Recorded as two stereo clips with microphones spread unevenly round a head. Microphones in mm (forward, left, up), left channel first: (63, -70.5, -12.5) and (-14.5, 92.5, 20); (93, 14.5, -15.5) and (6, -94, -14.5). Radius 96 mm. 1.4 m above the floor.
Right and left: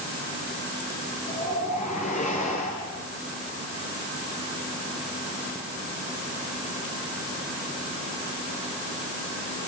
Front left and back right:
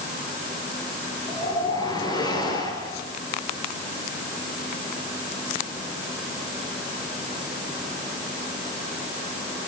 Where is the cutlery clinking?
I don't hear cutlery clinking.